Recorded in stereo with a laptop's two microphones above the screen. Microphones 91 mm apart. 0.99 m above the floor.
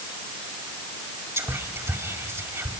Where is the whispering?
30° right (ahead or behind), 2.0 m.